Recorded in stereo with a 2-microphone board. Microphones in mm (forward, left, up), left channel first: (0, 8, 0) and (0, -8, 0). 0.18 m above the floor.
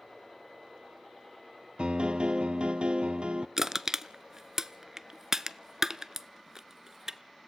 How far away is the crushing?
About 0.6 m.